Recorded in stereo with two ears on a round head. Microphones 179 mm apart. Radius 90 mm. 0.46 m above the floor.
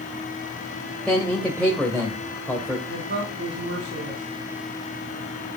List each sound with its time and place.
1.1 s a man speaking: 5° left (ahead or behind), 1.9 m
2.9 s a woman speaking: 50° right (ahead or behind), 3.5 m